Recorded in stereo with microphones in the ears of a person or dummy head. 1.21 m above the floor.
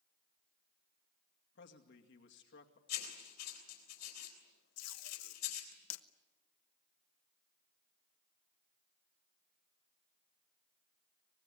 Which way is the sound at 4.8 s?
80° left.